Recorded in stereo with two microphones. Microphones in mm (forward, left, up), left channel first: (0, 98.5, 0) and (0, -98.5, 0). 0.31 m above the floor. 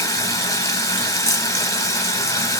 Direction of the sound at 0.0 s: 15° left (ahead or behind).